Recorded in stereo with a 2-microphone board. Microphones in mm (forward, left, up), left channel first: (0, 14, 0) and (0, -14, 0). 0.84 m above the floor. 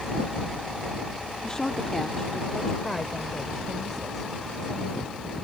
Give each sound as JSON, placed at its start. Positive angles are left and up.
{"t": 1.4, "sound": "a woman speaking", "side_deg": 25}